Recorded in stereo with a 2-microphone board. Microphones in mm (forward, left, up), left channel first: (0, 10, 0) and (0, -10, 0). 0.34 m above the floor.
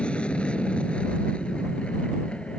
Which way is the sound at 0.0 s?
75° left (ahead or behind).